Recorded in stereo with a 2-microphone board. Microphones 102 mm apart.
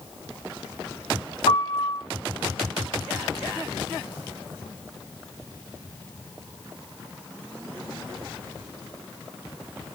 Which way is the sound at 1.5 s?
70° left (ahead or behind).